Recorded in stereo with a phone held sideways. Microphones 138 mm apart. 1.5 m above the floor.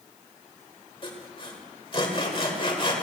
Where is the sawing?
40° left (ahead or behind), 1.8 m.